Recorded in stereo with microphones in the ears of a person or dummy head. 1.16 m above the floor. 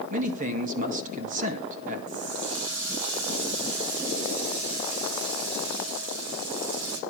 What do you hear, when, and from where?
0.1 s a man speaking: 45° right (ahead or behind), 1.7 m
2.1 s a running tap: 75° right (ahead or behind), 2 m